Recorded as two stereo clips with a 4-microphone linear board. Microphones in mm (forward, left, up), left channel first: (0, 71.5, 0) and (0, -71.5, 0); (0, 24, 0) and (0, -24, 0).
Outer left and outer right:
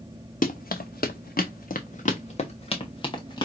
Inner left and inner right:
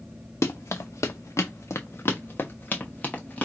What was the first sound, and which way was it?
Running footsteps, 65° left (ahead or behind).